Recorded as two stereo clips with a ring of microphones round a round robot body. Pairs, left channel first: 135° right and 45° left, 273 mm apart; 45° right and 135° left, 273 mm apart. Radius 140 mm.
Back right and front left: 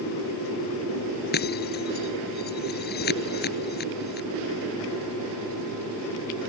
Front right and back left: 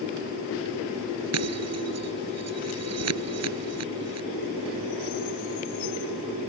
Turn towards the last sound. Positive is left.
turn(degrees=170)